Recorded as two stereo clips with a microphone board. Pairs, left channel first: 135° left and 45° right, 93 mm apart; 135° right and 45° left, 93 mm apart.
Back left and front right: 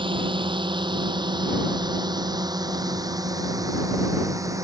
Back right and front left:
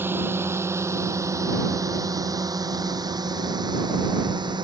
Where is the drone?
20° right; by 4.6 s 10° left.